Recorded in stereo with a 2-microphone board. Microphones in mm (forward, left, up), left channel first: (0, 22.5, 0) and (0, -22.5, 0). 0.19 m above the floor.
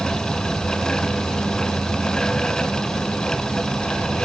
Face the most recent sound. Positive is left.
turn(degrees=0)  # may be behind; listen again after turning